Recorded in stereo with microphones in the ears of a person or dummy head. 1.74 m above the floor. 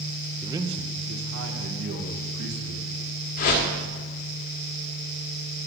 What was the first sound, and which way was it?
A man speaking, 5° right (ahead or behind).